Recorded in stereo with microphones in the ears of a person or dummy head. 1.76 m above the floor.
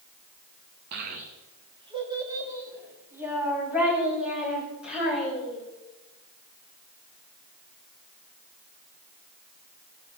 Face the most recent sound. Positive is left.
turn(degrees=-5)  # may be behind; listen again after turning